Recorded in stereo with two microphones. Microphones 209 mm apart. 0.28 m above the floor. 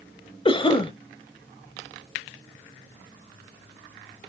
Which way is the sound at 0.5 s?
25° left (ahead or behind).